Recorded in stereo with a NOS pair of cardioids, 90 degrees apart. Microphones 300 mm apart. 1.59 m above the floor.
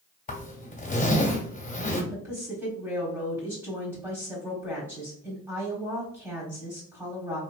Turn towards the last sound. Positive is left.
turn(degrees=-5)